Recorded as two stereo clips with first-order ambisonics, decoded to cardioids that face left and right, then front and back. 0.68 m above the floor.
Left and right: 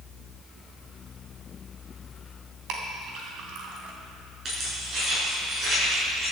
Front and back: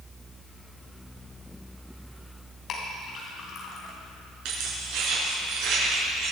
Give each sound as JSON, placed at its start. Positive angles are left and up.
{"t": 2.7, "sound": "a clink", "azimuth_deg": -55, "distance_m": 3.0}
{"t": 4.5, "sound": "keys jangling", "azimuth_deg": -155, "distance_m": 6.0}